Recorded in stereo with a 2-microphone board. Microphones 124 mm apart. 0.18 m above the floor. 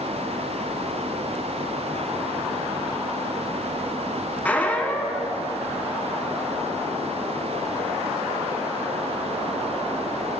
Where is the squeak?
10° left (ahead or behind), 0.7 m.